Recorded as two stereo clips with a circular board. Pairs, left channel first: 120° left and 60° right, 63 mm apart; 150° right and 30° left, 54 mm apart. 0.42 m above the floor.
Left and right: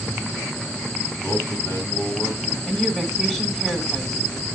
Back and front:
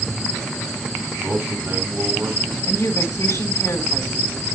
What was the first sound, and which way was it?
A man speaking, 65° left.